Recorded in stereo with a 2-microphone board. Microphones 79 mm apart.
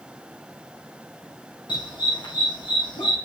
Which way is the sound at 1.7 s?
75° left (ahead or behind).